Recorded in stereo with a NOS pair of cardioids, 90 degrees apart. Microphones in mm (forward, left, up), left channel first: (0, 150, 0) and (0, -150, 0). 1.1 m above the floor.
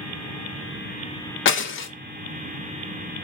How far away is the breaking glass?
About 0.6 m.